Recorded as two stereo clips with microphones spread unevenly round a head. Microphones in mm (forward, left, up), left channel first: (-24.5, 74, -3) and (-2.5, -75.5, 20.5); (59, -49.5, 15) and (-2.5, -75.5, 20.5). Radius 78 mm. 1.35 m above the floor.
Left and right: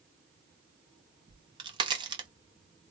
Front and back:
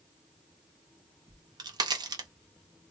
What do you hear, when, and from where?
1.3 s a crack: 145° right, 1.0 m